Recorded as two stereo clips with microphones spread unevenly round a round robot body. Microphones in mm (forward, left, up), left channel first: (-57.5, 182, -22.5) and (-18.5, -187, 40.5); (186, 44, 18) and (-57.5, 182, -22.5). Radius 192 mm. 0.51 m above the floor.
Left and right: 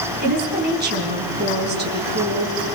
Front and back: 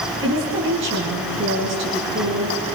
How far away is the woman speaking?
About 4.5 m.